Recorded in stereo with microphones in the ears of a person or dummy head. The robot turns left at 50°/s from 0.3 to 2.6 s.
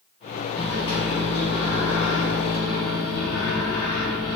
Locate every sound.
0.6 s a microwave: 165° left, 0.8 m; by 4.4 s 65° left, 0.8 m